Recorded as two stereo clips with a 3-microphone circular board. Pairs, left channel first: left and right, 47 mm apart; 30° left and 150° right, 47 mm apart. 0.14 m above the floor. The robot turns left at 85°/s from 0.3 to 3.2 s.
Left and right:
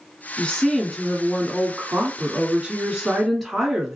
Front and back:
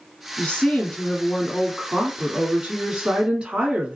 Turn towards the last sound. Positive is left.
turn(degrees=180)